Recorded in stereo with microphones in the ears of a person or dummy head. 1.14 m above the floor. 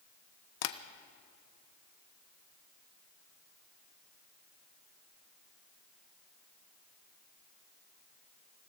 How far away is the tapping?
About 0.8 m.